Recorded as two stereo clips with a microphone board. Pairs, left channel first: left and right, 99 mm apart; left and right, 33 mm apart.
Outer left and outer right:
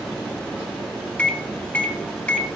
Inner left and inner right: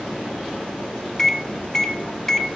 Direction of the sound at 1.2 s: 15° left (ahead or behind).